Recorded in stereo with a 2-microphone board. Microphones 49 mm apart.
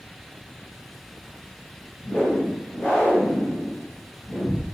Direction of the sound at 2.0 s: 25° left (ahead or behind).